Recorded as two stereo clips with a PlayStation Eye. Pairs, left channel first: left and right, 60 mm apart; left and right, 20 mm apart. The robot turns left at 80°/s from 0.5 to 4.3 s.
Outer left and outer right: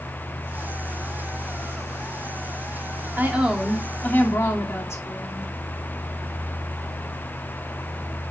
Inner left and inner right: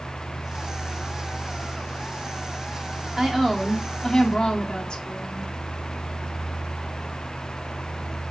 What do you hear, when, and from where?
3.2 s a woman speaking: 145° right, 2 m; by 5.5 s 125° left, 2 m